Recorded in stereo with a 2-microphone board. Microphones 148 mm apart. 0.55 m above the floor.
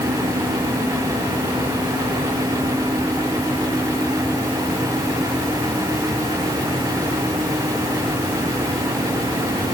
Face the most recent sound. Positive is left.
No sound to turn to.